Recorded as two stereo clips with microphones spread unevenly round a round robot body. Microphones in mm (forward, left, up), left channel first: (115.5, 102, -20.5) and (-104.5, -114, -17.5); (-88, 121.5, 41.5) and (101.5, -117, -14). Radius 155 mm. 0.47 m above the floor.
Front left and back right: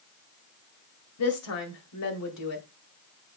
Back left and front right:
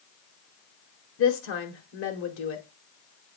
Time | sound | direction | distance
1.2 | a woman speaking | 80° left | 2 m